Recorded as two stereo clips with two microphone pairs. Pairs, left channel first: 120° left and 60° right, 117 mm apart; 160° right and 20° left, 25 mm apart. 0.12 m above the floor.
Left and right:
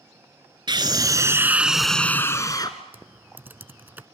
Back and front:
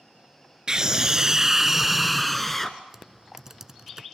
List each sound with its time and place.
0.7 s a scream: 30° right, 1.4 m; by 2.8 s 130° left, 1.3 m
2.9 s typing on a keyboard: 10° right, 0.6 m